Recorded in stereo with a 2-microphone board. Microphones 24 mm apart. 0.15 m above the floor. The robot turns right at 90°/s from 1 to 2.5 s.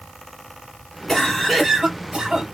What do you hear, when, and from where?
1.1 s a cough: 15° left (ahead or behind), 1.7 m; by 2.5 s 30° right (ahead or behind), 1.7 m